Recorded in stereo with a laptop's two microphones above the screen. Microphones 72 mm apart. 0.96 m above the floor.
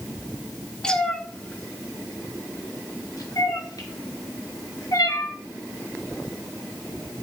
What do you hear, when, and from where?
0.8 s a cat meowing: 10° left (ahead or behind), 1.3 m; by 5.3 s 60° left (ahead or behind), 2.5 m